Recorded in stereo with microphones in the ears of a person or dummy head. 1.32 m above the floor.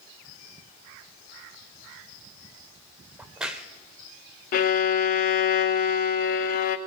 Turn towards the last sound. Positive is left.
turn(degrees=50)  # may be behind; listen again after turning